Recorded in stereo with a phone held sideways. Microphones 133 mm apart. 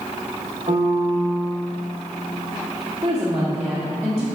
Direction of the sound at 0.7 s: 45° right (ahead or behind).